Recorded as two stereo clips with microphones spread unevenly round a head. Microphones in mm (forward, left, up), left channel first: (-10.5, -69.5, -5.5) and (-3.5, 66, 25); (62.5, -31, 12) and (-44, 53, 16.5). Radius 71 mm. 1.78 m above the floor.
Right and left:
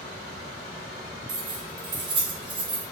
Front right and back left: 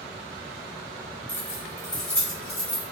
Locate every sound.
1.3 s keys jangling: 40° left, 2 m